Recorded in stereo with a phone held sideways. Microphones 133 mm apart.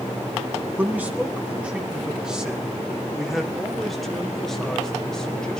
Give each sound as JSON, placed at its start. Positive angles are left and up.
{"t": 0.8, "sound": "a man speaking", "side_deg": -15, "distance_m": 4.0}